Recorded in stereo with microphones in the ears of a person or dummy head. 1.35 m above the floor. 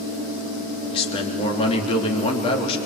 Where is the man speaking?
30° left (ahead or behind), 3.5 m.